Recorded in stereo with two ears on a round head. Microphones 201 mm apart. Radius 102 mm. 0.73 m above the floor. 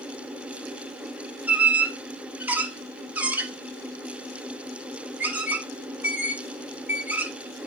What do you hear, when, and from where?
1.5 s a squeak: 5° right (ahead or behind), 1.4 m